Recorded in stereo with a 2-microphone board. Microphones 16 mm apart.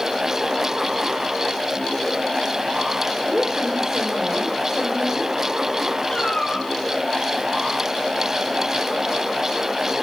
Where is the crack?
No crack in this recording.